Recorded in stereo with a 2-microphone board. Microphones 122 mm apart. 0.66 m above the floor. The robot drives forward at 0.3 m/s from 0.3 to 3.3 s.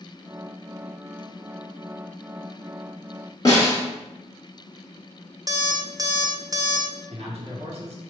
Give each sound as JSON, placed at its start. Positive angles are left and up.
{"t": 3.5, "sound": "a snare drum", "side_deg": 30, "distance_m": 1.4}
{"t": 5.5, "sound": "an alarm clock", "side_deg": -30, "distance_m": 0.6}
{"t": 7.1, "sound": "a man speaking", "side_deg": -55, "distance_m": 1.6}